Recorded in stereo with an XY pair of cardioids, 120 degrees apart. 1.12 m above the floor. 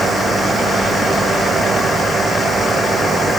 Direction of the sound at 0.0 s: 30° right.